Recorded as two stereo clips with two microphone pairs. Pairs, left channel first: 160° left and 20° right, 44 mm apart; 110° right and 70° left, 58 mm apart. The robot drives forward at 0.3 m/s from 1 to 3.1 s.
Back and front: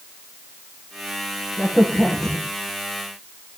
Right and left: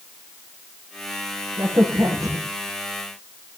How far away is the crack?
About 8 m.